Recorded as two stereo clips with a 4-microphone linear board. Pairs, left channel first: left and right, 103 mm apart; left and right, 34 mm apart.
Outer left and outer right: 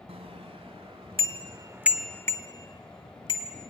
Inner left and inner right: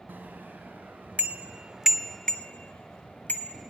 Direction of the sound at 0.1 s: 75° right (ahead or behind).